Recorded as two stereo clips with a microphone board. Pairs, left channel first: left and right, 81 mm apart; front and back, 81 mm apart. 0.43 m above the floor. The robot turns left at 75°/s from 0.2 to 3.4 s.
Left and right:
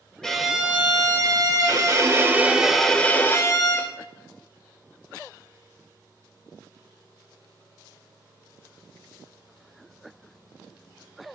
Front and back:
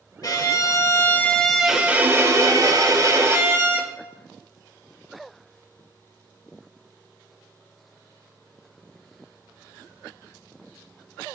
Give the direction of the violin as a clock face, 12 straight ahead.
12 o'clock.